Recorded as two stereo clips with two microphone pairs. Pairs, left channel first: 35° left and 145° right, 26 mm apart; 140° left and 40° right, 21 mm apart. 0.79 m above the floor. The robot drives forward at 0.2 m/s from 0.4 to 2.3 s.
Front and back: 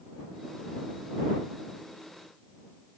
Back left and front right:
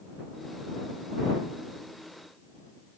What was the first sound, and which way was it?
Only background noise.